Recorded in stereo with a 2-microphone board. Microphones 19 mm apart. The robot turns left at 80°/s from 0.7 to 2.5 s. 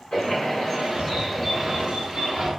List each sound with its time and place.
0.1 s a bird: 70° left, 1.1 m; by 2.5 s 75° right, 1.1 m